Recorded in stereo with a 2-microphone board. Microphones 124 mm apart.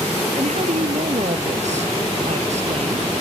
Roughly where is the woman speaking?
Right.